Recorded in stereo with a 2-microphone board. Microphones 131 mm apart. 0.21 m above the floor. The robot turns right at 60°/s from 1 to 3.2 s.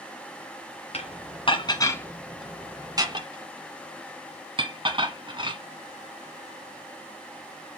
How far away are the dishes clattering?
About 1.4 m.